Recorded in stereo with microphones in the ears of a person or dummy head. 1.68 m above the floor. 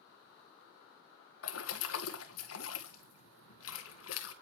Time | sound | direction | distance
1.4 | a splash | 80° left | 1.9 m